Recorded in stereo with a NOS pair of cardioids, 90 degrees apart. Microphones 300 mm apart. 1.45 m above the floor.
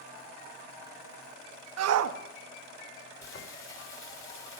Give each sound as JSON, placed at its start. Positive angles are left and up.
{"t": 1.8, "sound": "a shout", "azimuth_deg": -65, "distance_m": 1.3}
{"t": 3.2, "sound": "frying", "azimuth_deg": 45, "distance_m": 3.5}